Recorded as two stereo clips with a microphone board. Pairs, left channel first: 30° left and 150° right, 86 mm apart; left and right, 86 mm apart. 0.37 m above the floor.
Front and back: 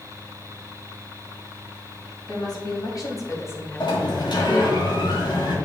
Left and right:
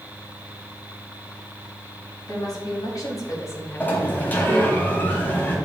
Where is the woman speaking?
60° left, 3 m; by 4.8 s 135° right, 1.3 m.